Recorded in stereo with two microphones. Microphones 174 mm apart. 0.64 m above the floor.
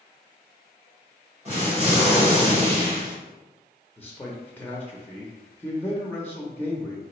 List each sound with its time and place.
1.4 s an explosion: 40° right (ahead or behind), 1.9 m
4.0 s a man speaking: 10° left (ahead or behind), 0.6 m